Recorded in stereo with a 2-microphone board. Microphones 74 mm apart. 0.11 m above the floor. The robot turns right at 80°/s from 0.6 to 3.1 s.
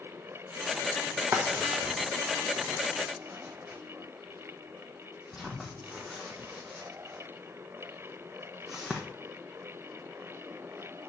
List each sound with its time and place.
1.3 s a drawer: 35° right (ahead or behind), 1.1 m; by 9.0 s 5° right (ahead or behind), 1.1 m